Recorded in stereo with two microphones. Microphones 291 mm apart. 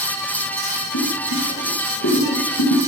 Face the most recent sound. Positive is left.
turn(degrees=80)